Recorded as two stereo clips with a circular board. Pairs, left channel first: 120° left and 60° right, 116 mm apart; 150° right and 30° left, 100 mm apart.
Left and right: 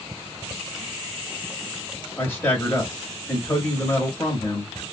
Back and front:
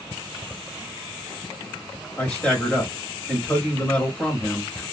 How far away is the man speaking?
About 1.0 m.